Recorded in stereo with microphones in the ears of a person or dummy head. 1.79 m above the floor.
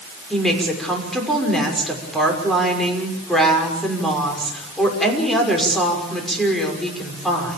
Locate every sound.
0.3 s a woman speaking: centre (ahead or behind), 6 m